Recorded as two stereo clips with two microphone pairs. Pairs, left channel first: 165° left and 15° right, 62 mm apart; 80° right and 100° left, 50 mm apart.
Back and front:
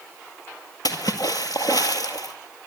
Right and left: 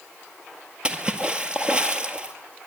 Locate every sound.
0.8 s a splash: 170° left, 1.8 m